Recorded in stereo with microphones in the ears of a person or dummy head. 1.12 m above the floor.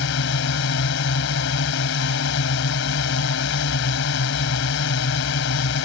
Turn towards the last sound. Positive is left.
turn(degrees=65)  # may be behind; listen again after turning